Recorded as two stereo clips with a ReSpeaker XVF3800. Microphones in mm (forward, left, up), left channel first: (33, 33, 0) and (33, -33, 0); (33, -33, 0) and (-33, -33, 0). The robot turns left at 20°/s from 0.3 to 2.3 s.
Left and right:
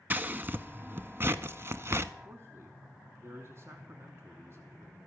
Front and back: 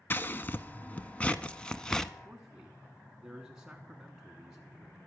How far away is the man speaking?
About 1.4 m.